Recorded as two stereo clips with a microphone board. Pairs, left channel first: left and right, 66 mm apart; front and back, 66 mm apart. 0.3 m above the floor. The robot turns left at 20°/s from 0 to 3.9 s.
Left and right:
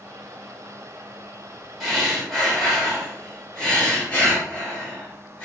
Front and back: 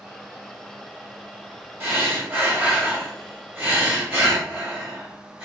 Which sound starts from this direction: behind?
Breathing, at 1.8 s.